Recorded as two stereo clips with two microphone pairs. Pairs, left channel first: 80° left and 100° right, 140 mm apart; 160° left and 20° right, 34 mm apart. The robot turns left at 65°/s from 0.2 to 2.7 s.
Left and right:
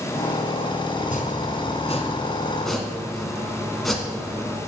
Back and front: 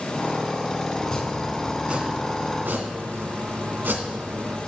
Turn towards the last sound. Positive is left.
turn(degrees=-10)